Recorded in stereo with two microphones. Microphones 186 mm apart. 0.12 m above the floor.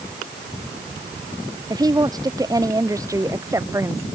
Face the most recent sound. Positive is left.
turn(degrees=-15)  # may be behind; listen again after turning